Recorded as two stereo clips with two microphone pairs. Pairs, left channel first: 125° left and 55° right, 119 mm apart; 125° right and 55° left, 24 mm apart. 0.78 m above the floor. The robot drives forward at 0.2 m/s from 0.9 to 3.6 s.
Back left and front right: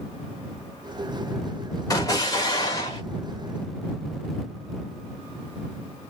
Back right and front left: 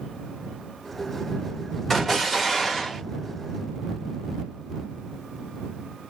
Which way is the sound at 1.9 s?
160° left.